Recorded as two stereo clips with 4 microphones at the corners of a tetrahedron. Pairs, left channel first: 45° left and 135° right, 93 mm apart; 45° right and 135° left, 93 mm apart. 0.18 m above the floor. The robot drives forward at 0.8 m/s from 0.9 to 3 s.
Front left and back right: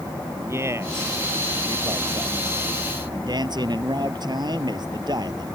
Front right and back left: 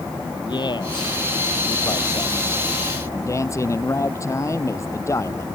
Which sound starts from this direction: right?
A man speaking, at 0.5 s.